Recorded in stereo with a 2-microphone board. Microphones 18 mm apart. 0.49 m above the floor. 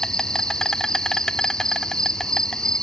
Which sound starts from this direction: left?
An insect, at 0.0 s.